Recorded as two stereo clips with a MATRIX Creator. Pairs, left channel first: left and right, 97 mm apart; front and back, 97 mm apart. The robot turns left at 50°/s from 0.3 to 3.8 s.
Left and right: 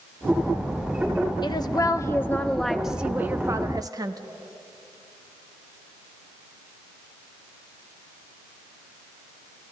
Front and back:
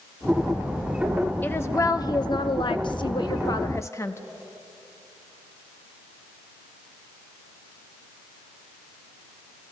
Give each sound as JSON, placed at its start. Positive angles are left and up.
{"t": 1.4, "sound": "a woman speaking", "azimuth_deg": 65, "distance_m": 0.7}